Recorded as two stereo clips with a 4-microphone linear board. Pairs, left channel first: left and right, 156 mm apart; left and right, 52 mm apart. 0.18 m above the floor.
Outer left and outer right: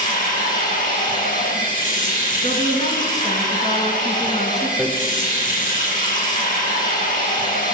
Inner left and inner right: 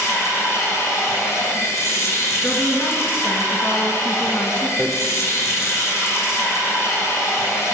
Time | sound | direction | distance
0.0 | running water | 60° left (ahead or behind) | 2.5 m
2.4 | a woman speaking | 50° left (ahead or behind) | 2.0 m
4.8 | hammering | 10° left (ahead or behind) | 1.8 m